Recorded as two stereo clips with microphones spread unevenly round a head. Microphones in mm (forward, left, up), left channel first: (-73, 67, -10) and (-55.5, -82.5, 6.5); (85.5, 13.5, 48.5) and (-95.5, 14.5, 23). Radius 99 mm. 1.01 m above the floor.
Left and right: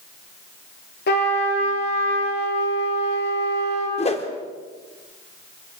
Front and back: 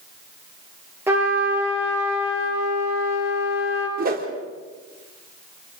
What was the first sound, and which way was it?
A trumpet, 100° left.